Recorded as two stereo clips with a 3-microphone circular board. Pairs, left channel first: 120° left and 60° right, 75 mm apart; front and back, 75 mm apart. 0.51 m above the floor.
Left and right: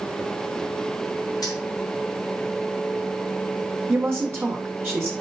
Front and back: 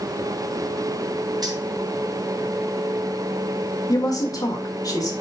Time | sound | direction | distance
1.4 | keys jangling | 150° left | 3 m
3.9 | a woman speaking | 5° right | 1.8 m